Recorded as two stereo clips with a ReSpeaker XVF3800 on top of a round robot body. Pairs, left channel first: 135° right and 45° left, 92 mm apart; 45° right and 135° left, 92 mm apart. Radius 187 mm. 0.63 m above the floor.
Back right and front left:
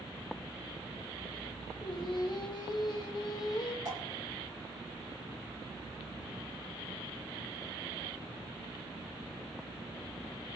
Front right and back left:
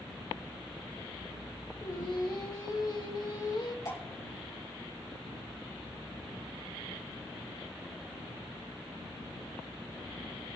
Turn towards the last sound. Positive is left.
turn(degrees=0)